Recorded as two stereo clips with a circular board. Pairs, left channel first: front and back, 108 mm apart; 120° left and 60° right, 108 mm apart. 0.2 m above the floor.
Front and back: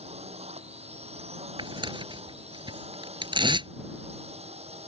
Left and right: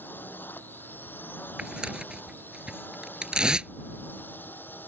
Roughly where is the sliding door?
I don't hear a sliding door.